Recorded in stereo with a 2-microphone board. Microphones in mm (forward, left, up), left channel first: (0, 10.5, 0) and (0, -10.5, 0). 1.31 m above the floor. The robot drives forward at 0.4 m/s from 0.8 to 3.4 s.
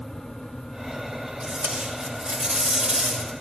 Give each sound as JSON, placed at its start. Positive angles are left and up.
{"t": 1.4, "sound": "tape being pulled", "side_deg": -65, "distance_m": 6.5}